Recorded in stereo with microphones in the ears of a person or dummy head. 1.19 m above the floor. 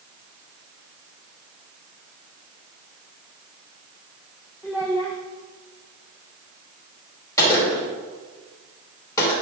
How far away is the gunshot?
About 3 m.